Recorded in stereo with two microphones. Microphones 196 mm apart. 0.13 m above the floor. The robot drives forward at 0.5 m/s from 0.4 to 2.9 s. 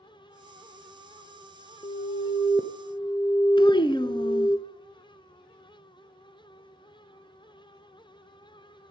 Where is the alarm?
30° left (ahead or behind), 0.9 m; by 4.6 s 25° left (ahead or behind), 1.2 m.